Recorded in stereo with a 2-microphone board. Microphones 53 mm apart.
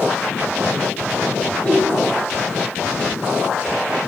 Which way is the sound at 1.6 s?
20° left (ahead or behind).